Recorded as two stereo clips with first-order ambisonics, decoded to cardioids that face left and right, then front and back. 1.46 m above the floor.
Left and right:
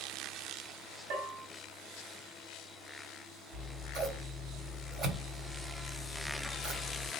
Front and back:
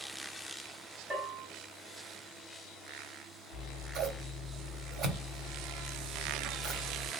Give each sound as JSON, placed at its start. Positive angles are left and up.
{"t": 1.1, "sound": "a bell", "azimuth_deg": -105, "distance_m": 1.9}
{"t": 3.5, "sound": "scissors", "azimuth_deg": -135, "distance_m": 1.9}